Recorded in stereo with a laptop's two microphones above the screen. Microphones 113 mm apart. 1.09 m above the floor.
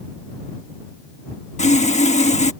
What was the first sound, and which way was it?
Sawing, 85° left.